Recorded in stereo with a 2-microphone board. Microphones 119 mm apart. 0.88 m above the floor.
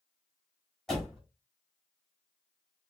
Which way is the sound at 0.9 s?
5° left (ahead or behind).